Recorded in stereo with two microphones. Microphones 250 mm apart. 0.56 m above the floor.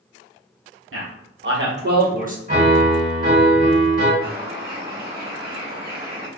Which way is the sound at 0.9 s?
55° right (ahead or behind).